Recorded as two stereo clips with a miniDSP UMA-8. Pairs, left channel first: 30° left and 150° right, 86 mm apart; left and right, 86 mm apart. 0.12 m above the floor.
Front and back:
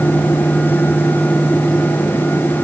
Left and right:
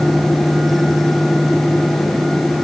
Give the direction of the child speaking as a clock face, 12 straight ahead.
No child speaking in this recording.